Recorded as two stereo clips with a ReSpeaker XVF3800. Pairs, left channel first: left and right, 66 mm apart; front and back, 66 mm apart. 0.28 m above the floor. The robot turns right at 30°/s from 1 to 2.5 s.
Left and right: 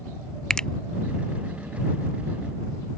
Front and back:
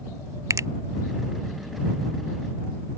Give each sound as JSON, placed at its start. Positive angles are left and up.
{"t": 0.5, "sound": "a finger snap", "azimuth_deg": 165}